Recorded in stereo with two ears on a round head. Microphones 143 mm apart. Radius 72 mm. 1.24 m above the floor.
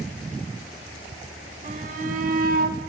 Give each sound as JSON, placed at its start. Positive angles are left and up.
{"t": 1.6, "sound": "a shout", "side_deg": -50, "distance_m": 4.5}